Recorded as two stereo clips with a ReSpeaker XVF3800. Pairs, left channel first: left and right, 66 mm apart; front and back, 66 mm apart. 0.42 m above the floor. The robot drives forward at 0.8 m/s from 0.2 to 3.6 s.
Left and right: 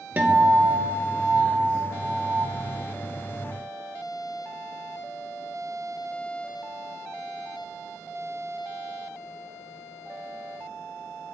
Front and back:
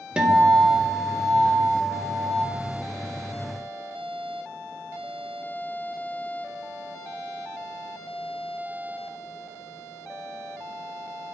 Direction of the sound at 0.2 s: 120° right.